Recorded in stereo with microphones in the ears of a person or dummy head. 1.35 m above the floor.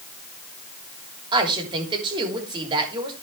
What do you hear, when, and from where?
1.3 s a woman speaking: 25° right (ahead or behind), 3 m